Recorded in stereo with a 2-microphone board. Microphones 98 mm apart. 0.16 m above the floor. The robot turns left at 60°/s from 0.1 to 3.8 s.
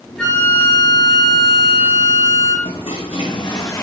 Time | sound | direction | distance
0.2 | a flute | 170° left | 3.5 m
2.6 | a toilet flushing | 100° left | 1.8 m